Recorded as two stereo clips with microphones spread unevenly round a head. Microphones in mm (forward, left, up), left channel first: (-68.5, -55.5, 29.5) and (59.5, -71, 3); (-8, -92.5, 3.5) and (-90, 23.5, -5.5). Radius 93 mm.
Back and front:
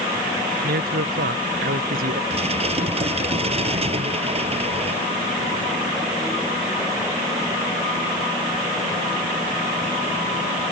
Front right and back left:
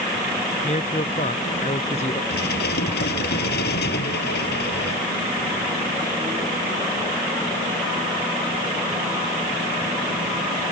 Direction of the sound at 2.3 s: 50° right.